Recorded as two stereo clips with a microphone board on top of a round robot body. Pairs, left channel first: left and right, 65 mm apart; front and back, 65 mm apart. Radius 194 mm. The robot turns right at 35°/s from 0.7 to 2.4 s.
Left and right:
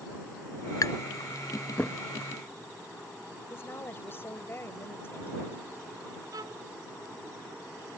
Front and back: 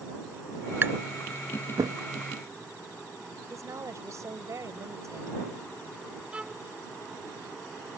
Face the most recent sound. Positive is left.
turn(degrees=-105)